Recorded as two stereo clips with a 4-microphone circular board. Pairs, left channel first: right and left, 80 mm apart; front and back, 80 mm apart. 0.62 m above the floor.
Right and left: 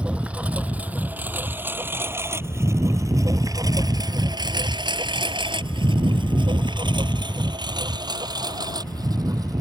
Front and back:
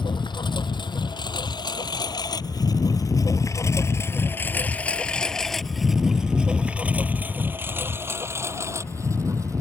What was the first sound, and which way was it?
A lawn mower, 15° left.